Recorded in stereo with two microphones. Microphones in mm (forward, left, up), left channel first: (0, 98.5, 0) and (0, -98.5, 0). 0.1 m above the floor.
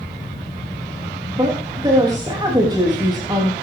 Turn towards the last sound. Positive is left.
turn(degrees=-20)  # may be behind; listen again after turning